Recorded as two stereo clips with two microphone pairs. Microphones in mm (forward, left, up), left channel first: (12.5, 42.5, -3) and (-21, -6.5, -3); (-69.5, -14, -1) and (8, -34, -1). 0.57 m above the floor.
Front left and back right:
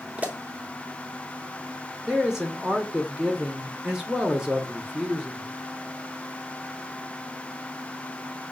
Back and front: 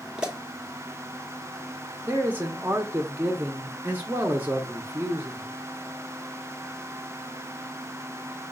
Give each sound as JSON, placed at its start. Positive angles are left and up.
{"t": 0.2, "sound": "a pop", "azimuth_deg": -85, "distance_m": 1.0}
{"t": 2.0, "sound": "a man speaking", "azimuth_deg": -50, "distance_m": 0.7}